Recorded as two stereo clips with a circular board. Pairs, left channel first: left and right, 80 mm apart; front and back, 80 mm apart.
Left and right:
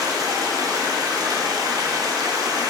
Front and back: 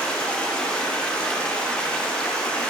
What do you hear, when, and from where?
0.0 s running water: 75° right, 0.8 m